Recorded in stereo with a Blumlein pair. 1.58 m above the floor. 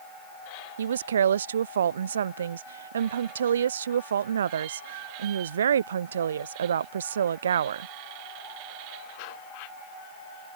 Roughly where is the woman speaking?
Ahead right.